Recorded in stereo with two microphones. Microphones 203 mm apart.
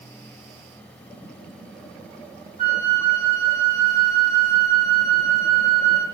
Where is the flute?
40° right (ahead or behind), 10 m.